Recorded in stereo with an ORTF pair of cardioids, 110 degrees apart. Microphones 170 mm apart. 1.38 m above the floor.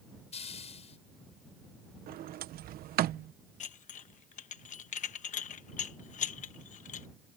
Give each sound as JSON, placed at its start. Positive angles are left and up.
{"t": 0.3, "sound": "a hiss", "azimuth_deg": 40}
{"t": 2.1, "sound": "a sliding door", "azimuth_deg": -65}
{"t": 3.6, "sound": "dishes clattering", "azimuth_deg": 50}